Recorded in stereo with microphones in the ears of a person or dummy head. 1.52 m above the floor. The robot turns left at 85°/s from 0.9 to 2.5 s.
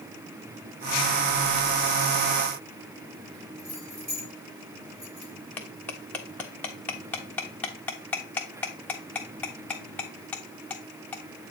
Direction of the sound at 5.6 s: 15° left (ahead or behind).